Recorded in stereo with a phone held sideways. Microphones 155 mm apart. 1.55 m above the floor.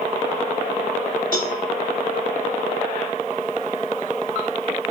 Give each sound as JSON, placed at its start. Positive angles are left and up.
{"t": 1.3, "sound": "a cowbell", "side_deg": 65, "distance_m": 3.5}